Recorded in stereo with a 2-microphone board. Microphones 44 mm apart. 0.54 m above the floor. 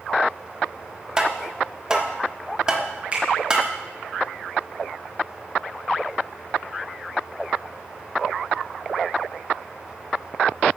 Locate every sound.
1.2 s tapping: 20° right (ahead or behind), 1.3 m
3.1 s a finger snap: 25° right (ahead or behind), 5.5 m